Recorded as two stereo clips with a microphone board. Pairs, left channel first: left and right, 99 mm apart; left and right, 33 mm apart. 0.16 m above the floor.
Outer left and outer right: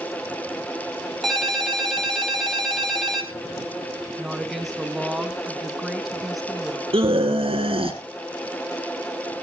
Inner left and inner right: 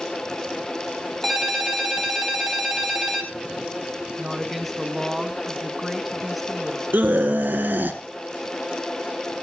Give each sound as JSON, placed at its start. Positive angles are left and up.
{"t": 1.2, "sound": "a ringtone", "side_deg": 0, "distance_m": 2.0}
{"t": 4.2, "sound": "a woman speaking", "side_deg": 0, "distance_m": 1.3}
{"t": 6.9, "sound": "a scream", "side_deg": -65, "distance_m": 3.0}